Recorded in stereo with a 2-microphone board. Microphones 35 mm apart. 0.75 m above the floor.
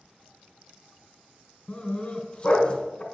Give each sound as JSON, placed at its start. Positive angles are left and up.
{"t": 1.7, "sound": "a dog barking", "side_deg": 25, "distance_m": 1.9}